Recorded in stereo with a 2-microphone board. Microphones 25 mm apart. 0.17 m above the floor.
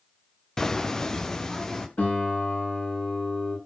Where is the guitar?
60° left (ahead or behind), 9 m.